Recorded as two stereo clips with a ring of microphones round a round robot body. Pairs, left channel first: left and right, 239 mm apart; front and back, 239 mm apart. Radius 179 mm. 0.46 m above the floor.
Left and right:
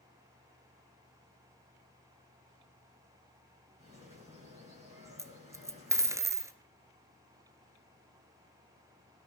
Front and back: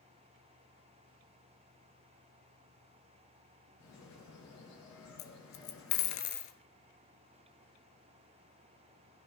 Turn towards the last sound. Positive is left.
turn(degrees=-10)